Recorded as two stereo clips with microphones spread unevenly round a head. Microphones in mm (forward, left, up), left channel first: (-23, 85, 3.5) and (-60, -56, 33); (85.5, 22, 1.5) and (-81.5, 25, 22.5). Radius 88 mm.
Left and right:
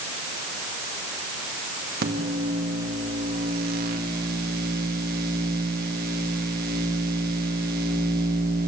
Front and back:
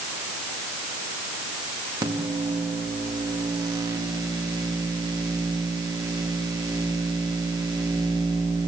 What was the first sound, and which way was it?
A microwave, 110° right.